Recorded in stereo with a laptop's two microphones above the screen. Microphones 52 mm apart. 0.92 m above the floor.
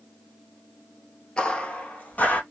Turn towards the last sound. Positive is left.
turn(degrees=35)  # may be behind; listen again after turning